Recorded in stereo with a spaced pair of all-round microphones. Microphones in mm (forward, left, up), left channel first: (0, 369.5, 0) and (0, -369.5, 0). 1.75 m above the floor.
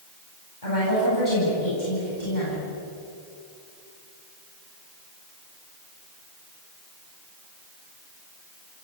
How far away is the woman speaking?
About 10 m.